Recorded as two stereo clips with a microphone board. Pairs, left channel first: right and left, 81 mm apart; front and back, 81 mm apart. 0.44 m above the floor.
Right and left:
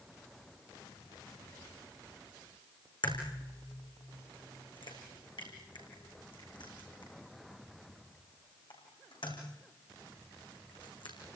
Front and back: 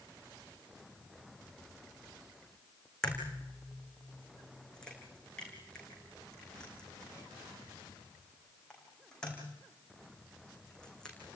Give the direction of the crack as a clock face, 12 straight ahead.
3 o'clock.